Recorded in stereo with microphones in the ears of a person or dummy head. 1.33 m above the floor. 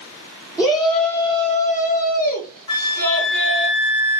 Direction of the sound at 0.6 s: 5° right (ahead or behind).